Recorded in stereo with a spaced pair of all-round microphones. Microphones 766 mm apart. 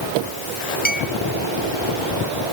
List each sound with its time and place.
0.8 s a clink: 10° left (ahead or behind)